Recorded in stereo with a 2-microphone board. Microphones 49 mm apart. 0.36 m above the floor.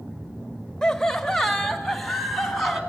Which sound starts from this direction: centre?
Laughter, at 0.8 s.